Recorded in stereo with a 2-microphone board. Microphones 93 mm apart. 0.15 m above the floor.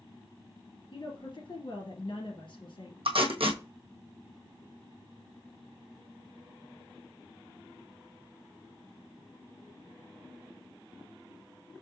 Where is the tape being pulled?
75° right (ahead or behind), 1.3 m.